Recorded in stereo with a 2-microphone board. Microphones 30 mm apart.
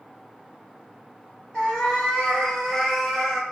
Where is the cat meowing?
30° left (ahead or behind), 1.6 m; by 3.4 s 5° right (ahead or behind), 0.9 m.